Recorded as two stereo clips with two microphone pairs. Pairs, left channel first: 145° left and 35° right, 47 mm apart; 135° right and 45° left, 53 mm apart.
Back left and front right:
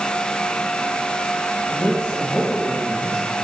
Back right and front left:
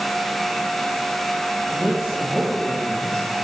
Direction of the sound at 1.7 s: 105° left.